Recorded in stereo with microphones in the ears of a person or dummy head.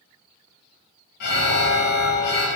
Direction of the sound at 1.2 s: 55° left (ahead or behind).